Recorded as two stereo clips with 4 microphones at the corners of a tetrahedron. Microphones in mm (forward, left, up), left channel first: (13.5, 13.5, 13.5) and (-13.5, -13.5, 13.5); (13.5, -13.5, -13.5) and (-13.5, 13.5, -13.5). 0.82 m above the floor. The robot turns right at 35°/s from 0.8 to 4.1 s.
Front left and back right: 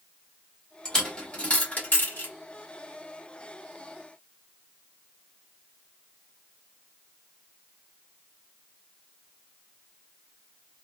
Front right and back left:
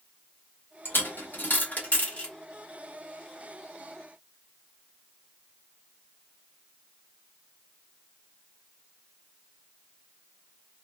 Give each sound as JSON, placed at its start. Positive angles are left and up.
{"t": 0.8, "sound": "a dropped coin", "azimuth_deg": -35, "distance_m": 1.4}